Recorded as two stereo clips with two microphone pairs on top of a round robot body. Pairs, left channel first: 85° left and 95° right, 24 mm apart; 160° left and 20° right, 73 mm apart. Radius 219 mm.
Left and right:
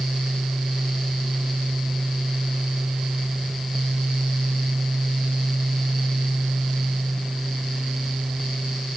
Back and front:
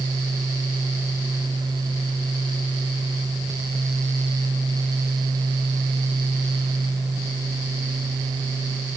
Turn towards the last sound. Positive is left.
No sound to turn to.